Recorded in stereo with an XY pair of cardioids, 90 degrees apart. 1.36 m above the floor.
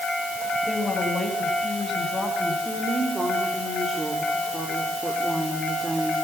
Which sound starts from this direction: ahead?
A woman speaking, at 2.6 s.